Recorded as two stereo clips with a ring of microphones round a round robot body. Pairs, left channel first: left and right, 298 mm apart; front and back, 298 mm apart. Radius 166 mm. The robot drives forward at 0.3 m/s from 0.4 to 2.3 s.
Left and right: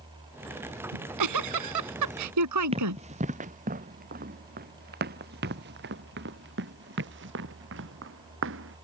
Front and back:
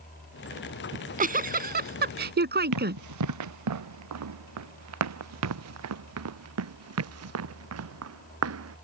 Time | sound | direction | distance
0.9 | a giggle | 115° right | ?
2.7 | running footsteps | 160° right | ?